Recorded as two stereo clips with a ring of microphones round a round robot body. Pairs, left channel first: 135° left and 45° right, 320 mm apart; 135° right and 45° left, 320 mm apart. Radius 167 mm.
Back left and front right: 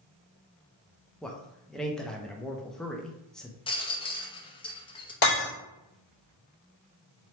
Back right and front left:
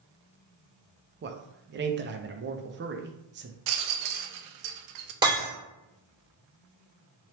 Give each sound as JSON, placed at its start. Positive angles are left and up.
{"t": 1.2, "sound": "a man speaking", "azimuth_deg": 50, "distance_m": 0.6}
{"t": 3.7, "sound": "a rattle", "azimuth_deg": 60, "distance_m": 0.6}
{"t": 5.2, "sound": "breaking glass", "azimuth_deg": 120, "distance_m": 2.0}